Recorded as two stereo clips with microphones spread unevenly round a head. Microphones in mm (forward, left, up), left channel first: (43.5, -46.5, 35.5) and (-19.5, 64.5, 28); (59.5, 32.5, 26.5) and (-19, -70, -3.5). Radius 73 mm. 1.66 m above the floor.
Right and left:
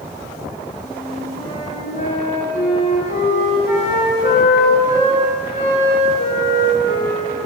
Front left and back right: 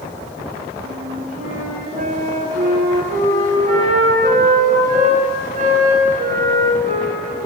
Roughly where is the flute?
Right.